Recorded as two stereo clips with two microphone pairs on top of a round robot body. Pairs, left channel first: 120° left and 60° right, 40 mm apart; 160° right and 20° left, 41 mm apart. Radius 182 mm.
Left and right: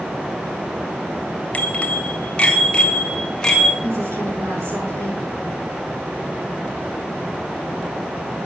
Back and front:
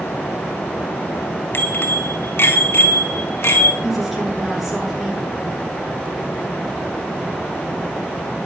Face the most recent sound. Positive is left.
turn(degrees=-65)